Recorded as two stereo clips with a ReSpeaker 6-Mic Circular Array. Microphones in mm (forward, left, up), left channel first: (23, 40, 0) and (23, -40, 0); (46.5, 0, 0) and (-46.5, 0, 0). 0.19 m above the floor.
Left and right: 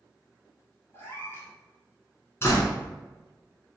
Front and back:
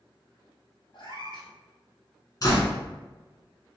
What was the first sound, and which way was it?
A cat meowing, 30° left.